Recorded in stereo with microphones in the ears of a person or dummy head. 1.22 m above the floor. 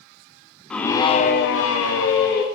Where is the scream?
5° left (ahead or behind), 0.9 m; by 2.4 s 70° left (ahead or behind), 1.3 m.